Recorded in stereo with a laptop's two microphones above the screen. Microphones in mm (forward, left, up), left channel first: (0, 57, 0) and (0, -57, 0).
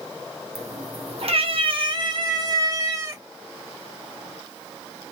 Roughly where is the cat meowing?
Right.